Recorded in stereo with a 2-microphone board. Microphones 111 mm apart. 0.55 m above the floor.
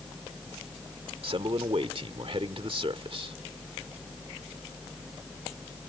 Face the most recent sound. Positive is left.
turn(degrees=-55)  # may be behind; listen again after turning